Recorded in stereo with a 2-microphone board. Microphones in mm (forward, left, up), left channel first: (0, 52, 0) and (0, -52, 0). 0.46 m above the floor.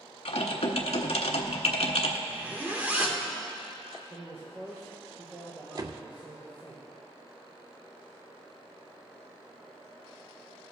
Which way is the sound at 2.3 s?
15° right (ahead or behind).